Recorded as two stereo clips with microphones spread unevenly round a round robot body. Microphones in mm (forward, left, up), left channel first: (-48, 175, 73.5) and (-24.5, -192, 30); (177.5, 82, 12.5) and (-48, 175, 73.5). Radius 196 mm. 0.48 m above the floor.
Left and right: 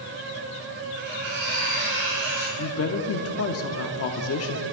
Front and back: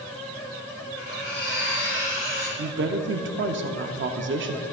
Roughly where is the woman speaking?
Behind left.